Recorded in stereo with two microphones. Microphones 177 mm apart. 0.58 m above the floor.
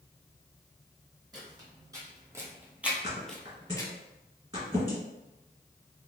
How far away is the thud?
About 1.9 m.